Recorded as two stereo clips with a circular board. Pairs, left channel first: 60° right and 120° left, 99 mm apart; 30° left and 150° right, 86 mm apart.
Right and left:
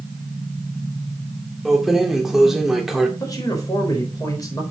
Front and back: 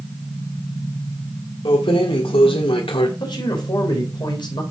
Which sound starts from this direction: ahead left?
Keys jangling, at 1.6 s.